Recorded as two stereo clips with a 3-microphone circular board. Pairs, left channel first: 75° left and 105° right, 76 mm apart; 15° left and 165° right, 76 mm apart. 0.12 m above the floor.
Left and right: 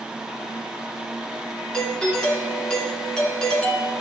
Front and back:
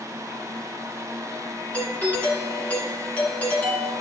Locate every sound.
1.7 s a doorbell: 15° left, 1.7 m